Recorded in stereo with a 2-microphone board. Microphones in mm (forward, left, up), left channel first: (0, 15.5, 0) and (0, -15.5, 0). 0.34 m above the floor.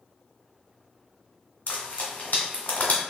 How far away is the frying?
About 1.3 m.